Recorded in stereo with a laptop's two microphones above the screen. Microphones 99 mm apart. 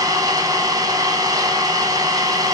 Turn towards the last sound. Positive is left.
turn(degrees=-40)  # may be behind; listen again after turning